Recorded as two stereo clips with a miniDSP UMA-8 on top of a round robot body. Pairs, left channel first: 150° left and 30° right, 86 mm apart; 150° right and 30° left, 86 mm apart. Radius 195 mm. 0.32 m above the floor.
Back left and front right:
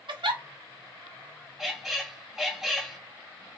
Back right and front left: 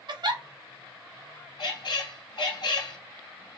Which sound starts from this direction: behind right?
A squeak, at 1.6 s.